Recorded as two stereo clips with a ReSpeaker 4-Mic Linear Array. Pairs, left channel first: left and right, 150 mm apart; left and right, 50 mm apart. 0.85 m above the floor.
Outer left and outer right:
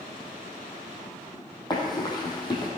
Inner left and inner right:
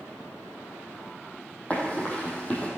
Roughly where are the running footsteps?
Left.